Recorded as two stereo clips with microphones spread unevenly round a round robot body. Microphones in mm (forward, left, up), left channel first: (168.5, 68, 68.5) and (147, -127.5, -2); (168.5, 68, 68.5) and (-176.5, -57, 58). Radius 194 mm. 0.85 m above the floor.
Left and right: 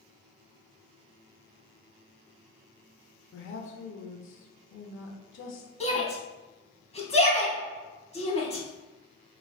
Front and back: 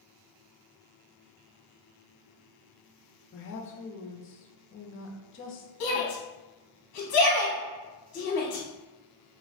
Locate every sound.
3.3 s a woman speaking: 65° left, 0.6 m
5.8 s a shout: 15° left, 0.9 m